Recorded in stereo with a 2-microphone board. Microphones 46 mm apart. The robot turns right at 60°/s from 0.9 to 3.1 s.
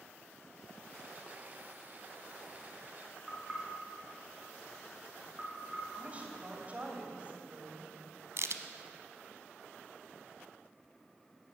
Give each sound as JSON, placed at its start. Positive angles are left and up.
{"t": 3.3, "sound": "knocking", "side_deg": 0, "distance_m": 5.5}
{"t": 6.0, "sound": "a woman speaking", "side_deg": -30, "distance_m": 3.0}
{"t": 8.4, "sound": "a crack", "side_deg": -65, "distance_m": 0.9}